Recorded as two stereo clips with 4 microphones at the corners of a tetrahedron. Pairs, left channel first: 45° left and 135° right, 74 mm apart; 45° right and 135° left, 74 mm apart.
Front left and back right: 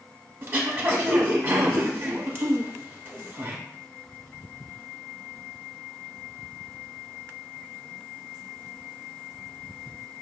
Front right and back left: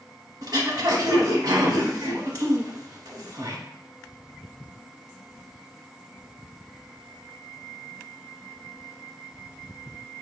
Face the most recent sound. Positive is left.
turn(degrees=165)